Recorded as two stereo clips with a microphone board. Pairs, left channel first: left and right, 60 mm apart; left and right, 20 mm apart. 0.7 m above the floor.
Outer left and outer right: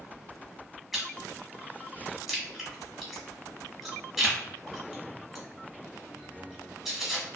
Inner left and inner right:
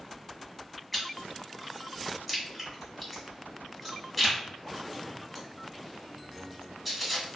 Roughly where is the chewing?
Centre.